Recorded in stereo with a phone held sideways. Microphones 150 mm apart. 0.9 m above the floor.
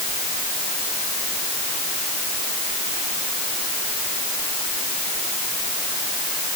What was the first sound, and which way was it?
Only background noise.